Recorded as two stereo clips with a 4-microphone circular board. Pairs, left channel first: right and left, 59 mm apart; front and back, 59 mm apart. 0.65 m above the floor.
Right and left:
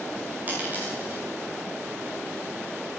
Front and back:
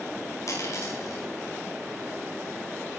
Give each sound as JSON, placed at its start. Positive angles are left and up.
{"t": 0.5, "sound": "a dropped coin", "azimuth_deg": 30, "distance_m": 9.0}